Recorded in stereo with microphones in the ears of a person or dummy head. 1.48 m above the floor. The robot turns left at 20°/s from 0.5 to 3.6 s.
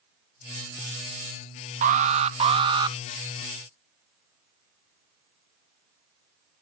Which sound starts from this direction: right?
An alarm, at 1.8 s.